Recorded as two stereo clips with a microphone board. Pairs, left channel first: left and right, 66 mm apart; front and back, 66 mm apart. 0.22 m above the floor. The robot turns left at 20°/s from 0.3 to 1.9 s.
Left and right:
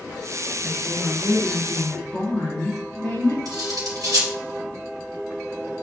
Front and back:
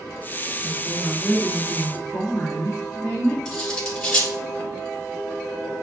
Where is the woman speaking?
120° left, 2.5 m; by 3.4 s 95° left, 2.5 m.